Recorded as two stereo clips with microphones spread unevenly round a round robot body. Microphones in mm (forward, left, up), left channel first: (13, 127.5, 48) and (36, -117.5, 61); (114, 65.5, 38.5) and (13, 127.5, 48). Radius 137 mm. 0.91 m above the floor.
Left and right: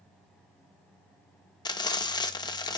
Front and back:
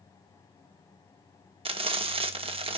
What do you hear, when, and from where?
1.6 s frying: 160° left, 1.0 m